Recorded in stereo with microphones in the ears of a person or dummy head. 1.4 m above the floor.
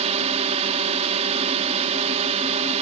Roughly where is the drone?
Right.